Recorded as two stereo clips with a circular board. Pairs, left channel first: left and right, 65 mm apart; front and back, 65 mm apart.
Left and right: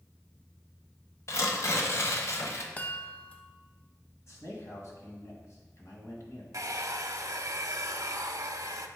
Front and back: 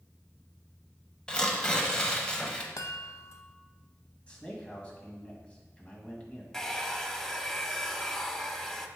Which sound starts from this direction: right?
A hair dryer, at 6.5 s.